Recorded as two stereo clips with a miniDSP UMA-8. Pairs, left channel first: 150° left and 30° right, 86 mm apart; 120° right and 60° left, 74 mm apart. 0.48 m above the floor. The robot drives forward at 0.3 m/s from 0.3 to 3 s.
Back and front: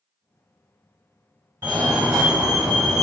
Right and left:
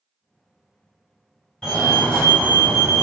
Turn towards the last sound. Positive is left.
turn(degrees=-80)